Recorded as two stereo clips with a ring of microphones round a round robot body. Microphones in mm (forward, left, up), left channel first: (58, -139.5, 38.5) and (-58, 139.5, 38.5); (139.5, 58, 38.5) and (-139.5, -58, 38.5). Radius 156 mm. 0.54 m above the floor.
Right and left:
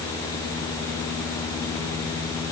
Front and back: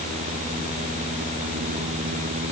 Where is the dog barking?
I don't hear a dog barking.